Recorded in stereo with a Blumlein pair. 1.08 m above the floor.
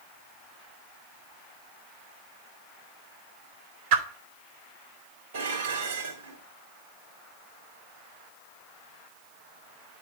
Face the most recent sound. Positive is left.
turn(degrees=-60)